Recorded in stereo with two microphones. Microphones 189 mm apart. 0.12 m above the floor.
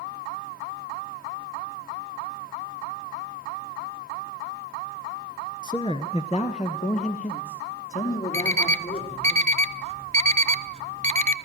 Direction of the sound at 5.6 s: 20° left (ahead or behind).